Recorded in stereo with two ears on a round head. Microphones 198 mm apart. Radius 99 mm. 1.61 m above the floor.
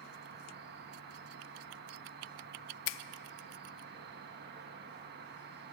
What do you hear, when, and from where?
0.0 s an insect: 50° right (ahead or behind), 1.5 m
2.9 s a finger snap: 60° left (ahead or behind), 0.6 m